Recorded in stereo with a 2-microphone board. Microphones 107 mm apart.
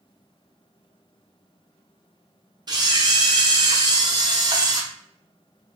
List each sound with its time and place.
2.7 s a camera shutter: 40° right (ahead or behind), 0.7 m